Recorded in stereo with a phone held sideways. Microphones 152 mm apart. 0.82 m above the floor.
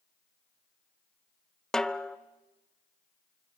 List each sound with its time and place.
1.7 s a snare drum: 5° left (ahead or behind), 0.5 m